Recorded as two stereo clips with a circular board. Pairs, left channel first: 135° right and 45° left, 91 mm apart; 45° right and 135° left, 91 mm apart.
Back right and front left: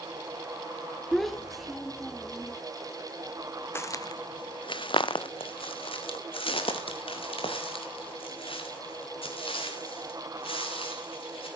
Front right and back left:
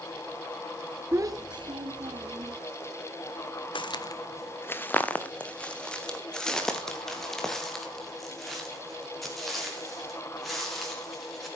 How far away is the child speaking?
About 0.8 m.